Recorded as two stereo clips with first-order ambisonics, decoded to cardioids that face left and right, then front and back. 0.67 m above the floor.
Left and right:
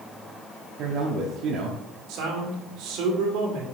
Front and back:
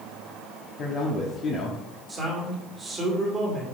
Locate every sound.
0.8 s a man speaking: 55° right, 1.0 m
2.1 s a man speaking: 110° right, 2.0 m